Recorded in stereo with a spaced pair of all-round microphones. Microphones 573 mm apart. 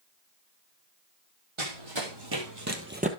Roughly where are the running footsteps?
Right.